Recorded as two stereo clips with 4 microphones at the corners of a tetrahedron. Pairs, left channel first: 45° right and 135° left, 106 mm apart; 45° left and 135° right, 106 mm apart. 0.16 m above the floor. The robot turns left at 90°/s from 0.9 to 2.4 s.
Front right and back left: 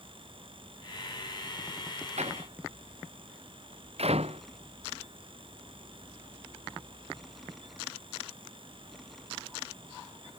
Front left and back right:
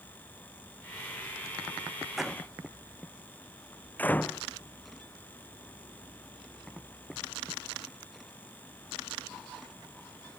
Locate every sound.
2.2 s a door slam: 140° left; by 4.4 s 120° left